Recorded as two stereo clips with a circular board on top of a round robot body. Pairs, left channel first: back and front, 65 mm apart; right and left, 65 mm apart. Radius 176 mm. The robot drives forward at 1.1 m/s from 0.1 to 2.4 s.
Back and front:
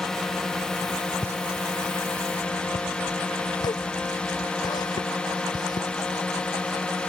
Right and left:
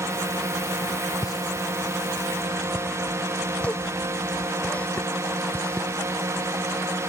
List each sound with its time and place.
0.0 s a drone: 100° left; by 7.1 s 110° left
1.2 s a pop: 50° right; by 7.1 s 160° right